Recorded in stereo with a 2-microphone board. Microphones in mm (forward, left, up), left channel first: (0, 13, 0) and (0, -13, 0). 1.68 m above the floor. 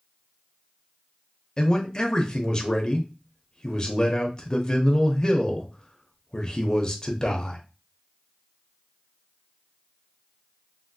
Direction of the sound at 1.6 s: 30° left (ahead or behind).